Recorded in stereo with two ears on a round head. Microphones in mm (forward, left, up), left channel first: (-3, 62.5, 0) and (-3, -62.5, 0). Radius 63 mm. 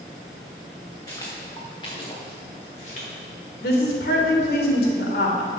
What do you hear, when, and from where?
1.1 s footsteps: 25° left (ahead or behind), 4 m; by 3.1 s 50° left (ahead or behind), 5 m
3.6 s a woman speaking: 80° left, 3 m